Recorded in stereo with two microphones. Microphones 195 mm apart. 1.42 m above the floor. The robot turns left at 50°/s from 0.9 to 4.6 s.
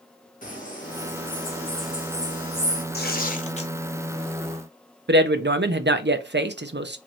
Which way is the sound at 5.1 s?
60° right (ahead or behind).